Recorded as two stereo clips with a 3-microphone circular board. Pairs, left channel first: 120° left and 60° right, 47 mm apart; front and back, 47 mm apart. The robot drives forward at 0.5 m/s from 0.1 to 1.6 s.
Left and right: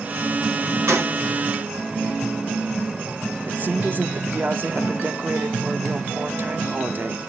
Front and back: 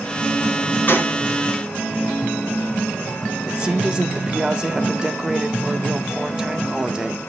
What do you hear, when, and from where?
0.9 s a gunshot: 45° right, 3 m
3.5 s a woman speaking: 110° right, 1.4 m